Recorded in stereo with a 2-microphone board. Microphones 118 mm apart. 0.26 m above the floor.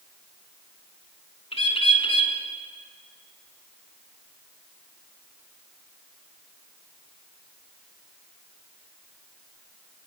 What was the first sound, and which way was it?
A bird, 55° left (ahead or behind).